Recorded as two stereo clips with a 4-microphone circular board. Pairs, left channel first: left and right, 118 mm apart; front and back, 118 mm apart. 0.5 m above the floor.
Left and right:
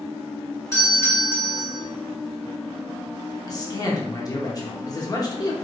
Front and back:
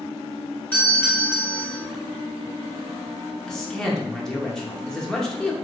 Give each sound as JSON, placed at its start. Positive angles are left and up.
{"t": 0.7, "sound": "a doorbell", "azimuth_deg": 60, "distance_m": 1.8}
{"t": 3.5, "sound": "a man speaking", "azimuth_deg": 80, "distance_m": 0.7}